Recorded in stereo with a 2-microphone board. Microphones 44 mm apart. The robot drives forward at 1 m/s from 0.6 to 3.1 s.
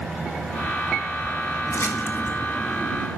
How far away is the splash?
About 1.9 m.